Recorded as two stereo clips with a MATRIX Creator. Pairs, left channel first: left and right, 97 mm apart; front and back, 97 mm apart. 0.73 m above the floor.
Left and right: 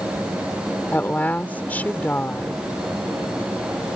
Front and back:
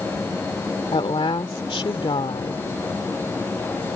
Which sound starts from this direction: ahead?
A woman speaking, at 0.9 s.